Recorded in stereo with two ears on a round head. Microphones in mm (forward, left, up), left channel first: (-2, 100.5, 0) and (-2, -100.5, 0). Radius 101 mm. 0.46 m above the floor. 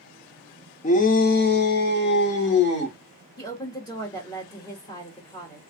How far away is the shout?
About 0.9 m.